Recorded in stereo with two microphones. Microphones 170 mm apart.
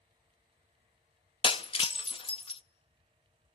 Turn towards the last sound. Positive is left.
turn(degrees=30)  # may be behind; listen again after turning